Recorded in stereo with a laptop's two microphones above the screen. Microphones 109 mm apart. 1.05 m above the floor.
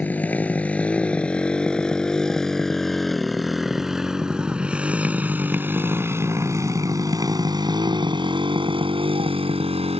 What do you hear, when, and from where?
0.0 s a motorcycle: 15° left (ahead or behind); by 10.0 s 65° right (ahead or behind)